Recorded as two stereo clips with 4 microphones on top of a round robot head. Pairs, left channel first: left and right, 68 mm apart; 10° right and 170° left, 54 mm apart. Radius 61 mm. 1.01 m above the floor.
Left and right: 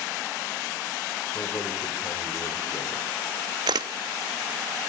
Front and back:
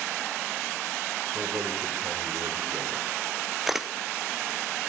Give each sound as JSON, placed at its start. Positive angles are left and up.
{"t": 1.3, "sound": "a man speaking", "azimuth_deg": 135, "distance_m": 4.0}
{"t": 3.7, "sound": "a camera shutter", "azimuth_deg": -105, "distance_m": 0.5}